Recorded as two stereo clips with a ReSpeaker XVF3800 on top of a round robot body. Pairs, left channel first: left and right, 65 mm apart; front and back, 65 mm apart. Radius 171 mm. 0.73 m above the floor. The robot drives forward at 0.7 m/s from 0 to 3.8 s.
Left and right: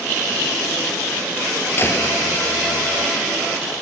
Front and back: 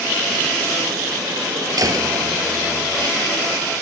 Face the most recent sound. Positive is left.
turn(degrees=150)